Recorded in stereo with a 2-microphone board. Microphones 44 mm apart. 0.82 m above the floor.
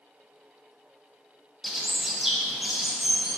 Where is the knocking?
No knocking in this recording.